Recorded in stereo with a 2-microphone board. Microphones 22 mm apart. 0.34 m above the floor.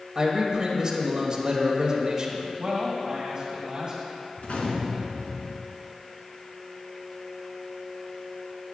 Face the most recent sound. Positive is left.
turn(degrees=75)  # may be behind; listen again after turning